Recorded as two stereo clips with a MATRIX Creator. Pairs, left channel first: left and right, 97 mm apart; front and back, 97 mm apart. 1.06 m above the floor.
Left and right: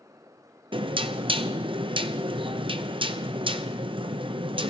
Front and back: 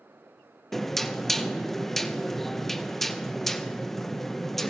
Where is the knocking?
90° right, 0.5 m.